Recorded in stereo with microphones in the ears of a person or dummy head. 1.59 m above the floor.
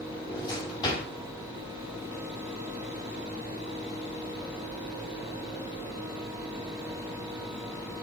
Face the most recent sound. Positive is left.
turn(degrees=25)  # may be behind; listen again after turning